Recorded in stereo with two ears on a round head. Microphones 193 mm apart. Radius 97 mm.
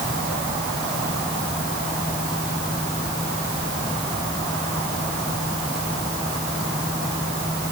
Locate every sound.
Only background noise.